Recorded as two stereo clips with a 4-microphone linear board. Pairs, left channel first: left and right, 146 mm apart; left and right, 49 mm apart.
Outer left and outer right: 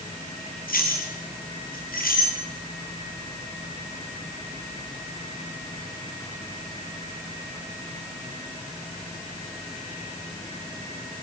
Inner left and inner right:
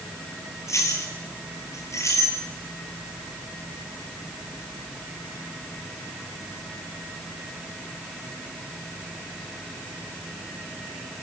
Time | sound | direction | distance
0.7 | keys jangling | 80° left | 6 m